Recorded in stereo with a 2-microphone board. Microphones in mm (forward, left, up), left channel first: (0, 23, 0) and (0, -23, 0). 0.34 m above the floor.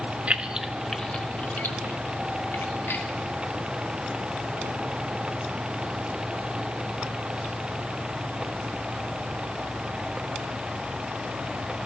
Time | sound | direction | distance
0.3 | keys jangling | 35° right (ahead or behind) | 0.9 m